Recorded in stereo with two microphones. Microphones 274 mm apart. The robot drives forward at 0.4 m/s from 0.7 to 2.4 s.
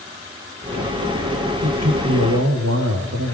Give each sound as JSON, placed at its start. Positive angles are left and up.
{"t": 1.6, "sound": "a man speaking", "side_deg": -65, "distance_m": 5.0}